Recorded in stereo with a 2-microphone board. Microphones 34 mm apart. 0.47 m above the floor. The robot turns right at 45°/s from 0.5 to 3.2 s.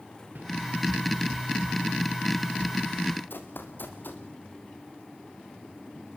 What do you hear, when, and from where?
0.3 s a whoosh: 55° right (ahead or behind), 5.5 m
3.3 s running footsteps: 70° left (ahead or behind), 3 m